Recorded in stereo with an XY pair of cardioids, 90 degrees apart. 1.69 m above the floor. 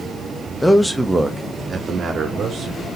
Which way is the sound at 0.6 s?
15° left.